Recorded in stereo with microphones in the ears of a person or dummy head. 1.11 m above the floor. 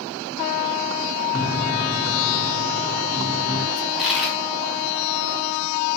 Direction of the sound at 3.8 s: Centre (ahead or behind).